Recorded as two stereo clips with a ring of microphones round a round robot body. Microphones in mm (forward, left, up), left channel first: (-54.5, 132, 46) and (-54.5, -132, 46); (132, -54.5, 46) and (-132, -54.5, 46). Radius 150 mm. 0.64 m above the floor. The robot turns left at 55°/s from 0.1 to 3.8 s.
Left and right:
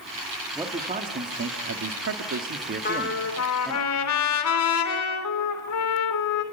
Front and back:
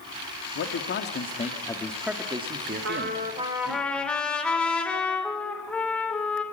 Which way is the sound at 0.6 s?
10° right.